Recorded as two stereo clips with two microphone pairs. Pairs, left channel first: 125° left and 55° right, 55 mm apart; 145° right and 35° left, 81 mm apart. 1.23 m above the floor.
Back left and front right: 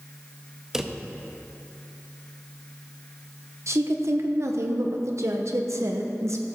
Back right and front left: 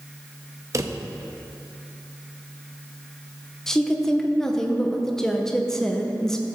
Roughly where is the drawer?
Ahead.